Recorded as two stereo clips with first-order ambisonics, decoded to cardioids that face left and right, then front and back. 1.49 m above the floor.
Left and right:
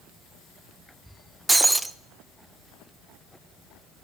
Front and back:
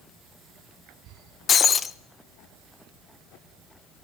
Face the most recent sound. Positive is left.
turn(degrees=-20)